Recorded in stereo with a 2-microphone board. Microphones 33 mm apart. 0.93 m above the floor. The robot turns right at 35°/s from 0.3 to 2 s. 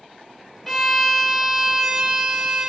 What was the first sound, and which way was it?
A violin, 170° left.